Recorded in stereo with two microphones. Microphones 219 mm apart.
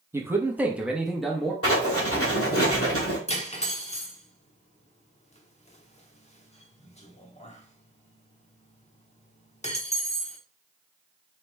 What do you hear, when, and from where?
0.1 s a man speaking: 10° right (ahead or behind), 0.9 m; by 1.5 s centre (ahead or behind), 1.0 m
1.6 s writing: 75° left (ahead or behind), 1.7 m
3.3 s cutlery clinking: 30° left (ahead or behind), 0.9 m